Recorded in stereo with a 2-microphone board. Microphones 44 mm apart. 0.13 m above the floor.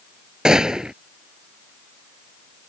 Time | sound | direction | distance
0.5 | a gunshot | 15° right (ahead or behind) | ?